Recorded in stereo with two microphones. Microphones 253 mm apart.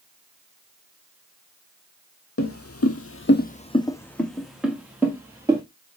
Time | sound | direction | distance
2.4 | footsteps | 60° left (ahead or behind) | 0.7 m